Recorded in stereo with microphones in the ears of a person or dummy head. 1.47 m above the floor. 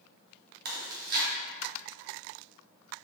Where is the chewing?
55° right (ahead or behind), 1.7 m.